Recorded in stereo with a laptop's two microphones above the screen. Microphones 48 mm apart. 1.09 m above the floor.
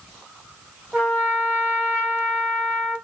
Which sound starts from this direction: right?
A trumpet, at 0.9 s.